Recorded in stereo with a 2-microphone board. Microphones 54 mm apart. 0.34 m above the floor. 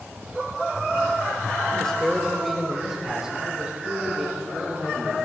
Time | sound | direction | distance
1.8 | a man speaking | 15° left (ahead or behind) | 1.0 m